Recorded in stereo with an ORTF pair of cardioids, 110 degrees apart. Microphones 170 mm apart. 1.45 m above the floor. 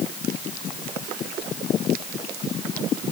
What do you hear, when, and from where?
Only background noise.